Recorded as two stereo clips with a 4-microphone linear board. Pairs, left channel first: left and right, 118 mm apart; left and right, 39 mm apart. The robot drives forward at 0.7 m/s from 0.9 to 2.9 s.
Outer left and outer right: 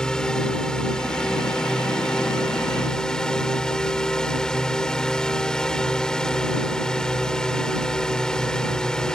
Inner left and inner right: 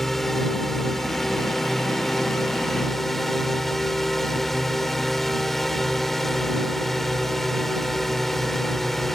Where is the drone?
5° left (ahead or behind).